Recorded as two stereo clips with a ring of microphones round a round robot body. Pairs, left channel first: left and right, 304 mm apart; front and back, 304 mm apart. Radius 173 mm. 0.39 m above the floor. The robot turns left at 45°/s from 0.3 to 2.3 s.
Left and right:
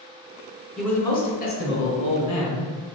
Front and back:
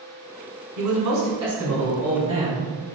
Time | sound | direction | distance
0.8 | a man speaking | straight behind | 1.7 m